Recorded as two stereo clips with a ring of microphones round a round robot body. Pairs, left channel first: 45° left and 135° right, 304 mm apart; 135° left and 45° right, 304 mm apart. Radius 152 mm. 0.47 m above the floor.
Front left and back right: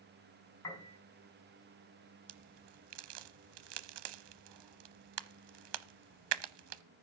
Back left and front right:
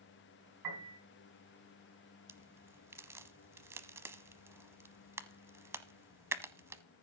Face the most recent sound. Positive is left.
turn(degrees=-125)